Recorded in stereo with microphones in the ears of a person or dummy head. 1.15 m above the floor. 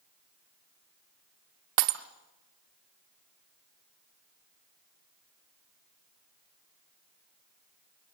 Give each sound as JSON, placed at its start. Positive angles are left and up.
{"t": 1.8, "sound": "breaking glass", "side_deg": -45, "distance_m": 0.9}